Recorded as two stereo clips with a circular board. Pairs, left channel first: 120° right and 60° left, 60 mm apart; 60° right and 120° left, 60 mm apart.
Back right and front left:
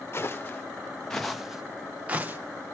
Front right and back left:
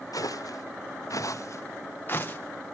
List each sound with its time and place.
0.1 s footsteps: 65° right, 1.2 m; by 2.4 s straight ahead, 1.2 m